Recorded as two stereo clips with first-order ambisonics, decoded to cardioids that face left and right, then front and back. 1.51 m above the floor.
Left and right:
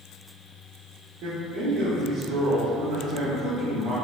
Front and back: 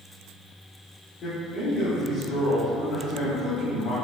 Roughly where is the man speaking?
Ahead right.